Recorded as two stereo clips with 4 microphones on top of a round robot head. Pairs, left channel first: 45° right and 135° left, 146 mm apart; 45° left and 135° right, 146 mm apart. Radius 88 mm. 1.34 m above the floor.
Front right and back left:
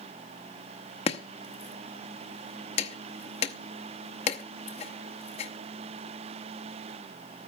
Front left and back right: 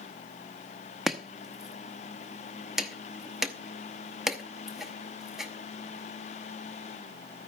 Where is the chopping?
50° right, 0.8 m.